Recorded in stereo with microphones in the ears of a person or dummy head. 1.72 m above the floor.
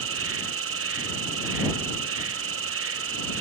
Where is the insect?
70° right (ahead or behind).